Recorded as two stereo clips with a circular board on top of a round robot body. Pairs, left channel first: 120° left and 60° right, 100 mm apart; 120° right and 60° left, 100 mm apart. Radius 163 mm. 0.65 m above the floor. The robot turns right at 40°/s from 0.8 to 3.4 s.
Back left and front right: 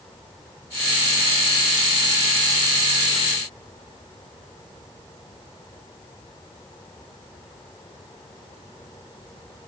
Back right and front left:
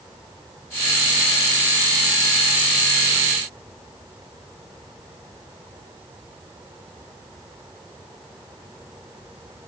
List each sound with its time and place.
Only background noise.